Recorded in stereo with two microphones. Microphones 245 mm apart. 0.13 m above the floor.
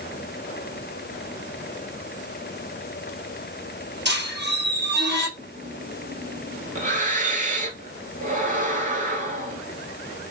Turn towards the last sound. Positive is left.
turn(degrees=-35)  # may be behind; listen again after turning